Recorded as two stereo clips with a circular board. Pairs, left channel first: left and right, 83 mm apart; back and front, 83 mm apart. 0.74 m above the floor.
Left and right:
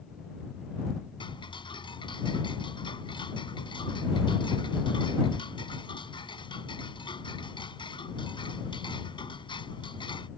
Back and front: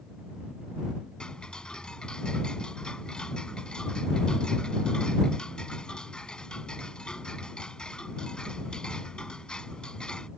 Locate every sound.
1.2 s ticking: 100° left